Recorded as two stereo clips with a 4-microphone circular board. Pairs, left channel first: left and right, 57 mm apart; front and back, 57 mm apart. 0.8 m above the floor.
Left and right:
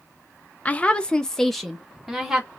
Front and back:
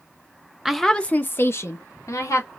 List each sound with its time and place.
0.7 s a woman speaking: 100° left, 0.6 m; by 2.5 s 10° right, 1.3 m